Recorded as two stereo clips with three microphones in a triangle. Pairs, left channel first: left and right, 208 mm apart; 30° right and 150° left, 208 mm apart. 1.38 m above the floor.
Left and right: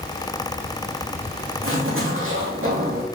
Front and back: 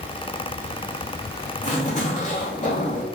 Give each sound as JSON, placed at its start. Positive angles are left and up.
{"t": 1.6, "sound": "a zipper", "azimuth_deg": -85, "distance_m": 2.5}